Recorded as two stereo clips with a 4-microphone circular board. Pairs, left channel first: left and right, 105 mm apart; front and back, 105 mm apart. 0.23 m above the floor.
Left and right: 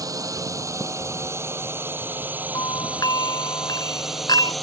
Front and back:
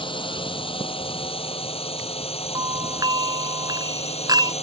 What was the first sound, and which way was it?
A drone, 35° right.